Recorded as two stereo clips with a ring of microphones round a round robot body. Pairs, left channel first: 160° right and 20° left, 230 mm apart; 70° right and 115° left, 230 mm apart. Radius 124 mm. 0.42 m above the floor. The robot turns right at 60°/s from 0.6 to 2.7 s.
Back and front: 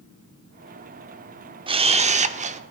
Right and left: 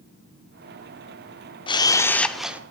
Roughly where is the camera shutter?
Ahead.